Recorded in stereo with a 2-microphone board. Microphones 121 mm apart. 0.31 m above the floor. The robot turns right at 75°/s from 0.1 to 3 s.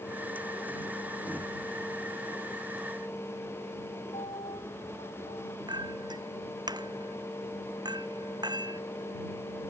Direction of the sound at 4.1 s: 60° left (ahead or behind).